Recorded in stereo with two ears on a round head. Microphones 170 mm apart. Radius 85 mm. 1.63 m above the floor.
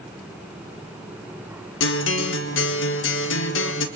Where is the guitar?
70° left (ahead or behind), 1.5 m.